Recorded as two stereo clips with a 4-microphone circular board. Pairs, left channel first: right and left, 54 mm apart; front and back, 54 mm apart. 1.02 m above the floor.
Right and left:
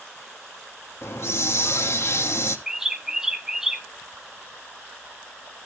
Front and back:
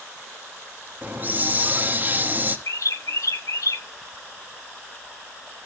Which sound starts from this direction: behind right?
A hiss, at 1.0 s.